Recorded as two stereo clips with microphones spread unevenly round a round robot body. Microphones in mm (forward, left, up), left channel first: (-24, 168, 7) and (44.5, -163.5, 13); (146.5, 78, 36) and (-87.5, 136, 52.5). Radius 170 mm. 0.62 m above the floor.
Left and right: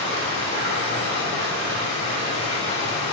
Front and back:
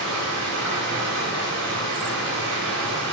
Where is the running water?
160° left, 3 m.